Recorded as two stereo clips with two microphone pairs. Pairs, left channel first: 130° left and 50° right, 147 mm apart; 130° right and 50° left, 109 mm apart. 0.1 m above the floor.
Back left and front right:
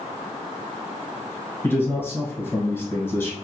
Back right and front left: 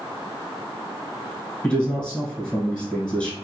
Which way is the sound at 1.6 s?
165° left.